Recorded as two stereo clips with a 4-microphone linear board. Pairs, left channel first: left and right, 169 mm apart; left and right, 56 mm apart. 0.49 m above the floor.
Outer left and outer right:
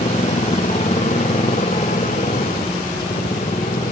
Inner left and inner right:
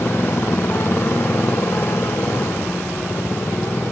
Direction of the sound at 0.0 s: 45° left (ahead or behind).